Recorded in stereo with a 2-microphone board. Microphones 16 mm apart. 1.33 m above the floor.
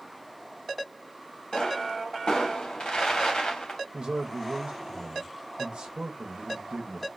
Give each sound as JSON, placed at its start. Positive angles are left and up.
{"t": 1.5, "sound": "a pop", "side_deg": 75, "distance_m": 1.1}
{"t": 3.9, "sound": "a man speaking", "side_deg": -75, "distance_m": 0.6}